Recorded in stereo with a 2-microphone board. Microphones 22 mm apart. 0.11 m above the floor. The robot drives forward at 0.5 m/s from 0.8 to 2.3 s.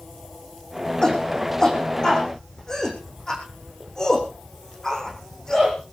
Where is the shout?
30° left (ahead or behind), 7 m.